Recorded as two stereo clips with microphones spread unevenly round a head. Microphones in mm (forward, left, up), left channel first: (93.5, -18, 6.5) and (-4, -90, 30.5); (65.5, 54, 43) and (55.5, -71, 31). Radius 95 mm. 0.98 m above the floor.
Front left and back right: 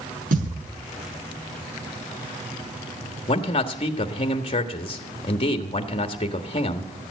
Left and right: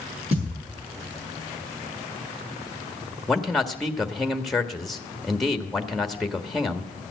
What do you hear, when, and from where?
0.3 s a thud: 150° right, 7 m
3.3 s a man speaking: 5° right, 1.5 m